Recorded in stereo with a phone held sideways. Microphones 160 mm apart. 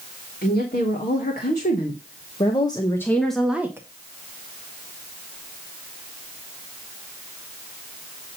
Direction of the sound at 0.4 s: 65° left (ahead or behind).